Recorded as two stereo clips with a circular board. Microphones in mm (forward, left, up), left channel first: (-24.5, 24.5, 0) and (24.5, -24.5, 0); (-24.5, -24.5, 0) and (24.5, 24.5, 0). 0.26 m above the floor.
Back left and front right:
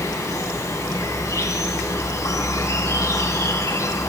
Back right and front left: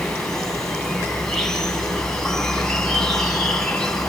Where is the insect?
145° left, 3 m.